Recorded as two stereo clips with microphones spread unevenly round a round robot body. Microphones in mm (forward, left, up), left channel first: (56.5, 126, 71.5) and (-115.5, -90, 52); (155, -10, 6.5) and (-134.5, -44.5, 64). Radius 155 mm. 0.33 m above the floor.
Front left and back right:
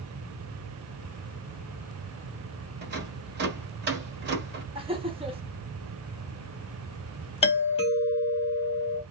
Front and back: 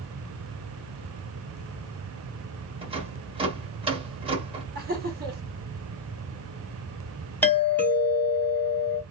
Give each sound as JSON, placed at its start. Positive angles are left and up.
{"t": 2.8, "sound": "a rattle", "azimuth_deg": -95, "distance_m": 1.2}
{"t": 4.8, "sound": "laughter", "azimuth_deg": -140, "distance_m": 1.0}
{"t": 7.4, "sound": "a doorbell", "azimuth_deg": 25, "distance_m": 1.4}